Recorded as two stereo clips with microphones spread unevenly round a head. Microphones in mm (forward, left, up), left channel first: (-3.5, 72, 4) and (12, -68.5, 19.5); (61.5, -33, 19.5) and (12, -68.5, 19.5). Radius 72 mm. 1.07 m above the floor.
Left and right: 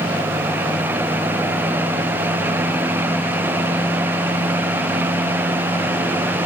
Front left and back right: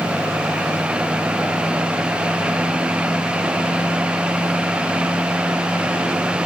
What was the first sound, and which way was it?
Only background noise.